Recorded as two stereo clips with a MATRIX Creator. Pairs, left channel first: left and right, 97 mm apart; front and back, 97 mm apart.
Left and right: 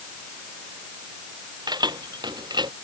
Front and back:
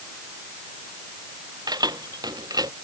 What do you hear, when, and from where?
1.7 s keys jangling: 135° right; by 2.7 s 130° right